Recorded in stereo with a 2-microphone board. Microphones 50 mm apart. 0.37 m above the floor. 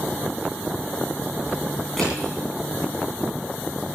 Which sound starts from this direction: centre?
Crushing, at 2.0 s.